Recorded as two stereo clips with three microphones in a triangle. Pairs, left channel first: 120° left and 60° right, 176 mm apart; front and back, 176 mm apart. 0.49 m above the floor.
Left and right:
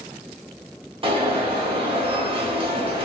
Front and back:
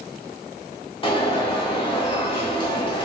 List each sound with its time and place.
1.0 s an alarm: 30° right, 0.8 m